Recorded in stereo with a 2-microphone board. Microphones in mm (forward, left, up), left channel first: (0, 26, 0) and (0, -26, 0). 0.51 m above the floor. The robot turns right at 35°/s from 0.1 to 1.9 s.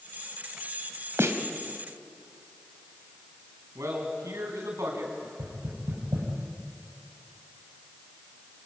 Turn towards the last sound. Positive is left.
turn(degrees=-75)  # may be behind; listen again after turning